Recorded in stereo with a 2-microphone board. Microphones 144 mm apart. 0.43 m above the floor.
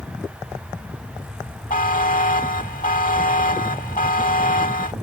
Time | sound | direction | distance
1.7 | a buzzer | 70° left (ahead or behind) | ?